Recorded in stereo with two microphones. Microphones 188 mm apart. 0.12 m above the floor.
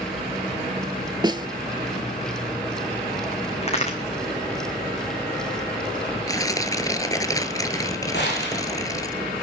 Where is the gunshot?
70° left (ahead or behind), 7 m.